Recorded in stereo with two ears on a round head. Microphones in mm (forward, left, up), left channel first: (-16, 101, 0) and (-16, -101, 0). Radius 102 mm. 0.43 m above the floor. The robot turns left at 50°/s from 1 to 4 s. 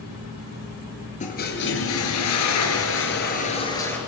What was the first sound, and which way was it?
A toilet flushing, 145° left.